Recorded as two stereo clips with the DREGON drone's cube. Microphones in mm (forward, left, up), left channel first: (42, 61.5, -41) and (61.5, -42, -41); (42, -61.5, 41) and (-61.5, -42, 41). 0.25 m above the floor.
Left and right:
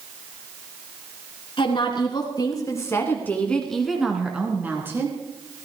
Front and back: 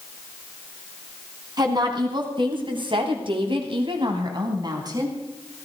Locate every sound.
1.6 s a woman speaking: 130° left, 3 m; by 5.2 s 140° right, 3.5 m